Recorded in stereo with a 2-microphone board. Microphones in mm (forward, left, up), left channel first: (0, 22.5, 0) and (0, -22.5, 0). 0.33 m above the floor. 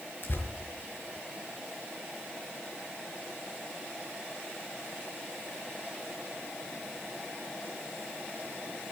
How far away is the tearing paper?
About 4 m.